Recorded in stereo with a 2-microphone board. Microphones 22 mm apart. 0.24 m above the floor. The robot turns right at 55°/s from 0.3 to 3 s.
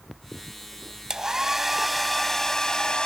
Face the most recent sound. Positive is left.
turn(degrees=55)